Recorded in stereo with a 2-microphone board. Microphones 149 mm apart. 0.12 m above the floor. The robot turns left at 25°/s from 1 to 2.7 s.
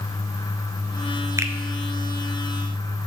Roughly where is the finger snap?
Right.